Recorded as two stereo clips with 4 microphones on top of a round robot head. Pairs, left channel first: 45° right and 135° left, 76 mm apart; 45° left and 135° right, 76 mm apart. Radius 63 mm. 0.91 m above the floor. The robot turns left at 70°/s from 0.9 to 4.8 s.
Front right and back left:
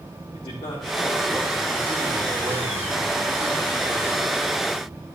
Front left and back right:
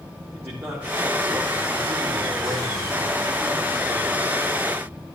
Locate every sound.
0.3 s a man speaking: 75° right, 2 m; by 4.3 s 45° left, 2 m